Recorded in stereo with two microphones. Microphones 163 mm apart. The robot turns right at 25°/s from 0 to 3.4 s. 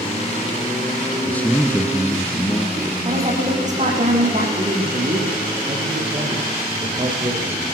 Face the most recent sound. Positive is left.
turn(degrees=-40)  # may be behind; listen again after turning